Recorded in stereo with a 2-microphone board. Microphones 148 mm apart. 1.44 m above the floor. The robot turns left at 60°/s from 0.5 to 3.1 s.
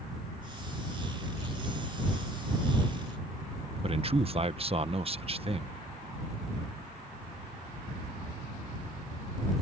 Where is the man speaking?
40° right (ahead or behind).